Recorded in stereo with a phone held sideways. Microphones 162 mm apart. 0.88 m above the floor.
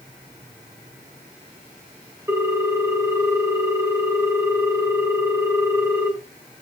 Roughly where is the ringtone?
Centre.